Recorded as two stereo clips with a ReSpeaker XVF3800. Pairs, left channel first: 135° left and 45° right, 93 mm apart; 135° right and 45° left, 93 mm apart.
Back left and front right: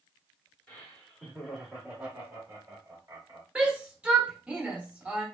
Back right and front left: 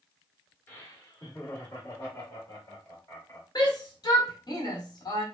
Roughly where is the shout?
Behind right.